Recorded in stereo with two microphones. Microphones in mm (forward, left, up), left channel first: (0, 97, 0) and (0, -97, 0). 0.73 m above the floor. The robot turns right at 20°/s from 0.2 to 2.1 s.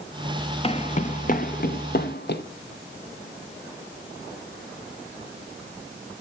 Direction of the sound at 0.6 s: 30° left (ahead or behind).